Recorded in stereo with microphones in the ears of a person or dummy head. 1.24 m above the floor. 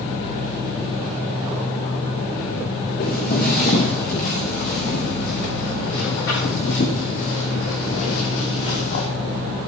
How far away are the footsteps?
About 5.5 m.